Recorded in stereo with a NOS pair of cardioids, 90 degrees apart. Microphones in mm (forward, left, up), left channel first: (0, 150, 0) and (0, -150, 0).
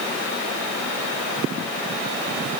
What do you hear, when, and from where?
Only background noise.